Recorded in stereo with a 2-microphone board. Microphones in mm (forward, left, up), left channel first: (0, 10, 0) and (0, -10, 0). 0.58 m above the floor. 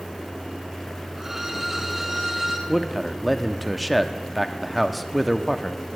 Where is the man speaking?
5° left (ahead or behind), 0.6 m.